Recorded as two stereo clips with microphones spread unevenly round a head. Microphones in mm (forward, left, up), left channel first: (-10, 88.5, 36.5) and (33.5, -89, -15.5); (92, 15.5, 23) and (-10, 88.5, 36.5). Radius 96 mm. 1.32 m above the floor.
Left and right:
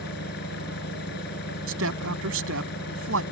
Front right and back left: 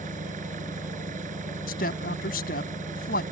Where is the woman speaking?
65° right.